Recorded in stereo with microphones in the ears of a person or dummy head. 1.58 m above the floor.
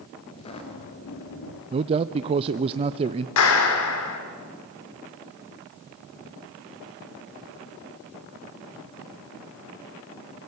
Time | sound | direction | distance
0.3 | footsteps | 20° left (ahead or behind) | 1.9 m
1.7 | a man speaking | 30° right (ahead or behind) | 0.5 m
3.4 | a clap | 75° left (ahead or behind) | 3.5 m